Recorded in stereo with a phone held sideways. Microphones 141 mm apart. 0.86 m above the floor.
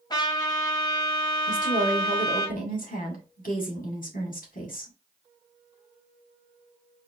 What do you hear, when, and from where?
0.1 s a trumpet: 30° left (ahead or behind), 1.4 m
1.5 s a woman speaking: 80° left, 1.9 m